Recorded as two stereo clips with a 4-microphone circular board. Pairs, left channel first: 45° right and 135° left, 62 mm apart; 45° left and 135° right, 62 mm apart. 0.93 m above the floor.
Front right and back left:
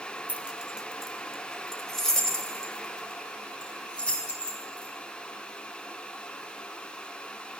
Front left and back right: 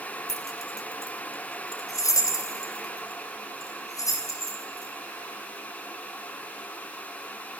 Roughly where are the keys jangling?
Left.